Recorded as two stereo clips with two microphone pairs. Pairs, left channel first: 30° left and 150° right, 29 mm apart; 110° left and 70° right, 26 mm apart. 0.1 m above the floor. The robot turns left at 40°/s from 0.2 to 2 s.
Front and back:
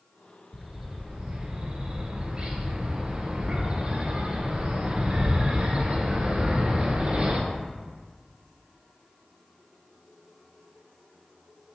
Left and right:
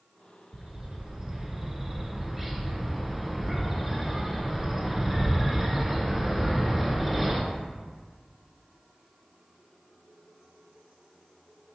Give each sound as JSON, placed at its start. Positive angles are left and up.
{"t": 0.5, "sound": "a bird", "azimuth_deg": -80, "distance_m": 0.5}